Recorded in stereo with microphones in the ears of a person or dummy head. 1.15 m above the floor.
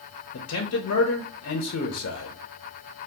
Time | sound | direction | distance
0.3 | a man speaking | 70° left (ahead or behind) | 0.7 m